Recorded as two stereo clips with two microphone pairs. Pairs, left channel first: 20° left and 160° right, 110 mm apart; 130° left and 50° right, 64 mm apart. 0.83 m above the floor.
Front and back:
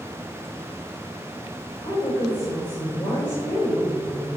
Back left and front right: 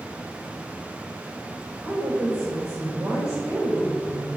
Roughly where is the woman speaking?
Ahead.